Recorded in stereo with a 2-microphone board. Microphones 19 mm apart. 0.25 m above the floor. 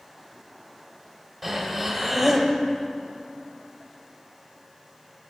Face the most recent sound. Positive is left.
turn(degrees=-15)  # may be behind; listen again after turning